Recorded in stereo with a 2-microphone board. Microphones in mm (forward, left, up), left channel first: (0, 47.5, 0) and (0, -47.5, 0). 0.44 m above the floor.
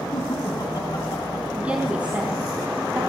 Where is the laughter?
45° left (ahead or behind), 3 m; by 1.4 s 55° left (ahead or behind), 3.5 m.